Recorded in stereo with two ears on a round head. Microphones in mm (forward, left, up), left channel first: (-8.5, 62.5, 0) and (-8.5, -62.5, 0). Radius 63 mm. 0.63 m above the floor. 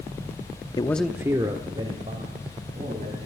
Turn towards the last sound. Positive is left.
turn(degrees=-45)  # may be behind; listen again after turning